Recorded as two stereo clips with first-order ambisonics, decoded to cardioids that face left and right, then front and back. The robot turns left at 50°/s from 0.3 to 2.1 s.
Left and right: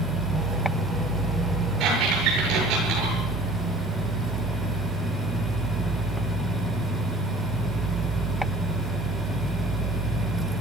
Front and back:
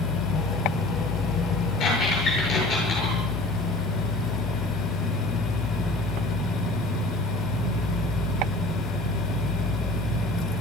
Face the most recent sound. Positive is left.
turn(degrees=-50)